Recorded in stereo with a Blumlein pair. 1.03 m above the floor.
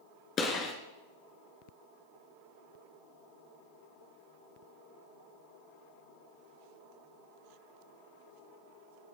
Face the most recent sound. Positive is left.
turn(degrees=30)